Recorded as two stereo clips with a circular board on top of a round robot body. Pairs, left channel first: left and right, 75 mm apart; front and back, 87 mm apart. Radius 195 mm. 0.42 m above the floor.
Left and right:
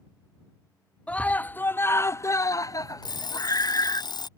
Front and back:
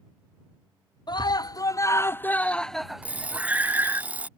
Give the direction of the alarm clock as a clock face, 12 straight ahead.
8 o'clock.